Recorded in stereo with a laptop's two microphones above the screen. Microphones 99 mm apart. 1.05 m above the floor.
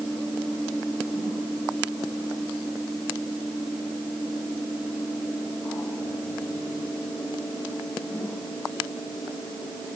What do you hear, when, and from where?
Only background noise.